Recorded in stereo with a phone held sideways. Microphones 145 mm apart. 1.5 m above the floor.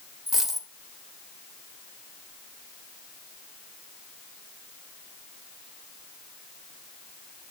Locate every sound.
0.3 s a dropped coin: centre (ahead or behind), 2 m